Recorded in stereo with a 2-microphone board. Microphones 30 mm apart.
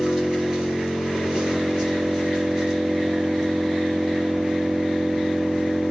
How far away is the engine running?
About 3 m.